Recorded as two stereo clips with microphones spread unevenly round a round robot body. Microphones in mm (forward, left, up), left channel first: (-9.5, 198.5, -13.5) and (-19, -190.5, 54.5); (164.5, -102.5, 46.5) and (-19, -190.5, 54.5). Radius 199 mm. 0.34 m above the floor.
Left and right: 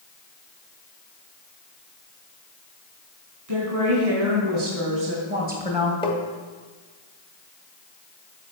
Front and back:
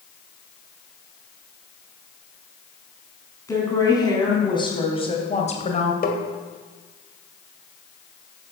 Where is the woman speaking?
45° right, 4 m; by 5.9 s 10° right, 2.0 m.